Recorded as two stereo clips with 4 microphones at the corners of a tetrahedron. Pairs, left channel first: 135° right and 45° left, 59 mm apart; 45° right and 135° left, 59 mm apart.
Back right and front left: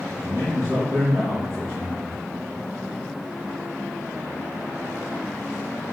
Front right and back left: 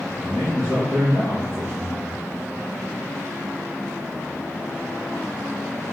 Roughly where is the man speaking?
Left.